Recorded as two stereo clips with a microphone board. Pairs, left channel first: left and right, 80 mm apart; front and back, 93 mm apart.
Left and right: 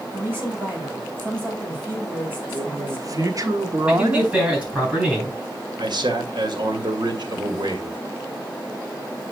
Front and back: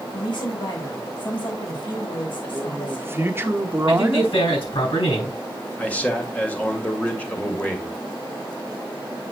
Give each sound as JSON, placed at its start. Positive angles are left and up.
{"t": 0.1, "sound": "a woman speaking", "azimuth_deg": -30, "distance_m": 4.5}
{"t": 2.5, "sound": "a man speaking", "azimuth_deg": -120, "distance_m": 1.2}
{"t": 3.9, "sound": "a man speaking", "azimuth_deg": -15, "distance_m": 6.5}
{"t": 5.8, "sound": "a man speaking", "azimuth_deg": -75, "distance_m": 1.9}